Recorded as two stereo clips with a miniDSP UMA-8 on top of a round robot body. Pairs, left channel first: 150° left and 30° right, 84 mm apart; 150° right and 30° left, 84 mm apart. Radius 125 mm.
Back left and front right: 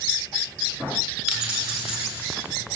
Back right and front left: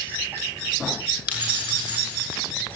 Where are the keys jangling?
110° right, 7.5 m.